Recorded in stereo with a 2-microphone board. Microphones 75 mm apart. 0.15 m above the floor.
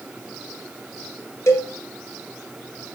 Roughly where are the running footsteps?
No running footsteps in this recording.